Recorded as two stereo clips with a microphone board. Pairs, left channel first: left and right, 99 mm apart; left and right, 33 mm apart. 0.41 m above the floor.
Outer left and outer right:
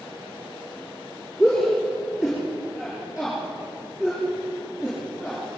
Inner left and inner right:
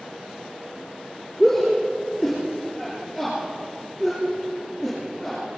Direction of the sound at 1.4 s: Centre (ahead or behind).